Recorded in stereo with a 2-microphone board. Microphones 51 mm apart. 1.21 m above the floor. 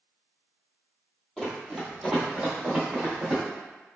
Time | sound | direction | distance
1.4 | running footsteps | 5° left (ahead or behind) | 1.4 m